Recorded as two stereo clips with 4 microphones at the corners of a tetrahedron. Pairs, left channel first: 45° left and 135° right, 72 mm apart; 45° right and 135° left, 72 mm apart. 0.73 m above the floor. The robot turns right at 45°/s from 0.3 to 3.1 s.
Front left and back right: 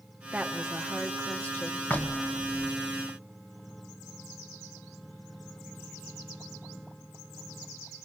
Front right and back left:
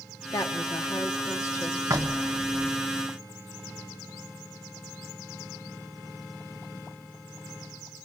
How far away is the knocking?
About 1.0 m.